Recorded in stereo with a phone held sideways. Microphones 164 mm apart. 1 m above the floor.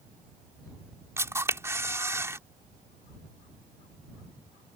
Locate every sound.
1.2 s a camera shutter: 15° right (ahead or behind)